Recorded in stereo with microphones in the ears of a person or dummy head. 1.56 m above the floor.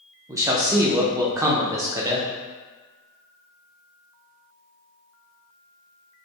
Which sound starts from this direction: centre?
A man speaking, at 0.3 s.